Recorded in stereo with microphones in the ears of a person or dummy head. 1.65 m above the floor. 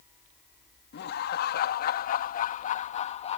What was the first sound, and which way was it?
Laughter, 60° left (ahead or behind).